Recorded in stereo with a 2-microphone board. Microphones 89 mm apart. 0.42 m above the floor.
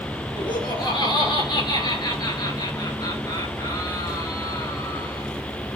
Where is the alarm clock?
No alarm clock in this recording.